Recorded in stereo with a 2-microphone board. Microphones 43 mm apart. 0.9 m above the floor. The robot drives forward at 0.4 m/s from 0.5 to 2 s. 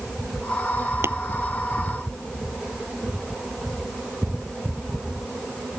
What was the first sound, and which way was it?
Tapping, 80° right.